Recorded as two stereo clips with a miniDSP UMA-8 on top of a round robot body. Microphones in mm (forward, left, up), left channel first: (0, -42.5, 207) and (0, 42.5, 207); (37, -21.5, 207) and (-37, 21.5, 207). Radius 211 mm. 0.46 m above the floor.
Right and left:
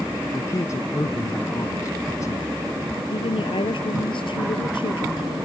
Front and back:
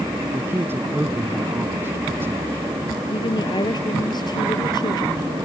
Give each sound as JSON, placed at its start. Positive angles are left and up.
{"t": 0.3, "sound": "a man speaking", "azimuth_deg": -145}
{"t": 3.1, "sound": "a woman speaking", "azimuth_deg": -70}